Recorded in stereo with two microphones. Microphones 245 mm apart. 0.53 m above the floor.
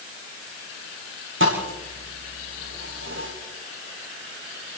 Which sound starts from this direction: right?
A thud, at 1.4 s.